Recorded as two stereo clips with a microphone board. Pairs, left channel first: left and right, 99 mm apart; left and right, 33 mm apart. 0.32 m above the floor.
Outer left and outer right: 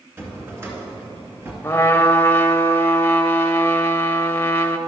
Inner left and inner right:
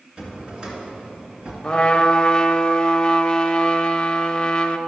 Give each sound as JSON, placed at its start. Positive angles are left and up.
{"t": 0.2, "sound": "a drawer", "side_deg": -25, "distance_m": 2.0}
{"t": 1.6, "sound": "a trumpet", "side_deg": 20, "distance_m": 0.6}